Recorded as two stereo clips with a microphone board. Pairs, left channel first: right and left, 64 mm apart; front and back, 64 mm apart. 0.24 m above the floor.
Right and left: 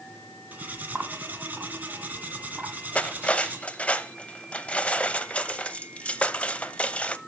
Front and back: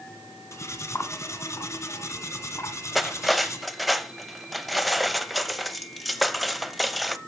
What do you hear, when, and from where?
0.5 s cutlery clinking: 30° left, 1.4 m
3.0 s cutlery clinking: 90° right, 0.6 m